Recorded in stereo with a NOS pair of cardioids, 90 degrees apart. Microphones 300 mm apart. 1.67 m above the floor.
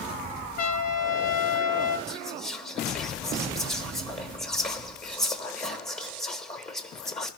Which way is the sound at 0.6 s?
55° left.